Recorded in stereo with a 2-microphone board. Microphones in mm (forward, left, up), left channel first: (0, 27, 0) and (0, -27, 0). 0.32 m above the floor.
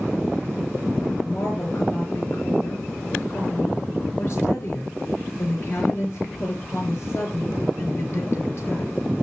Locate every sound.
1.2 s a woman speaking: 50° left (ahead or behind), 5.5 m